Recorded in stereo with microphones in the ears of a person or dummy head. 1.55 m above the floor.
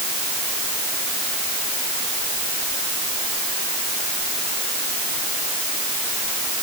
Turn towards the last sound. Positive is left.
No sound to turn to.